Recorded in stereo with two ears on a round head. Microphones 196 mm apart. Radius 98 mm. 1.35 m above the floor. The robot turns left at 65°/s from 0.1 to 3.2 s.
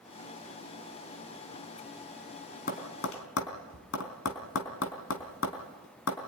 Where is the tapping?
45° left (ahead or behind), 3.5 m; by 6.2 s 70° left (ahead or behind), 3.5 m.